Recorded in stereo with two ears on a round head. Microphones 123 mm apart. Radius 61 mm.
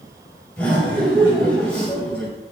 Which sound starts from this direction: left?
Laughter, at 0.6 s.